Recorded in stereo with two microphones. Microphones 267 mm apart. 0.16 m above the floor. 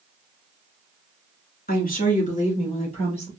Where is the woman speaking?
35° left (ahead or behind), 1.4 m; by 3.3 s 20° left (ahead or behind), 3 m.